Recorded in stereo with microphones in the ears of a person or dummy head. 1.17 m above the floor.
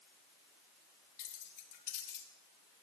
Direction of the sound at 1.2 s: 45° left (ahead or behind).